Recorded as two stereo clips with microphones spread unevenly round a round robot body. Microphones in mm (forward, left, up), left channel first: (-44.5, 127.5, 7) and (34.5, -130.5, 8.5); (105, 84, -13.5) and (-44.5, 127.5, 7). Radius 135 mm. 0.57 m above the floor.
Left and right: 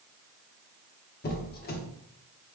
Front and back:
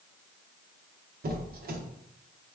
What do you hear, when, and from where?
1.2 s a squeak: 155° left, 0.6 m